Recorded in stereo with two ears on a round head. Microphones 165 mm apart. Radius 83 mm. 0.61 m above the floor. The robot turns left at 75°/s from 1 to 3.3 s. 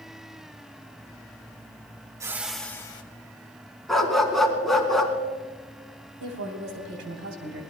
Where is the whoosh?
155° right, 1.1 m; by 3.0 s 145° left, 1.1 m.